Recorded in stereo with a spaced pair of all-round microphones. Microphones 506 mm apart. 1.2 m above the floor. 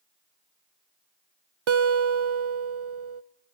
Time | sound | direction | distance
1.7 | a guitar | 70° right (ahead or behind) | 0.6 m